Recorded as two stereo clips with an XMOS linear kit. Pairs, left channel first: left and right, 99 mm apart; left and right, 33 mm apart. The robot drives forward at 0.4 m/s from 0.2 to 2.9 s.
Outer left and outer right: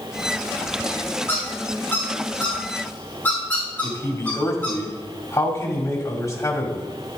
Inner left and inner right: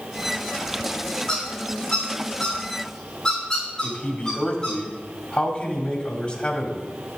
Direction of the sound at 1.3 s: 25° left (ahead or behind).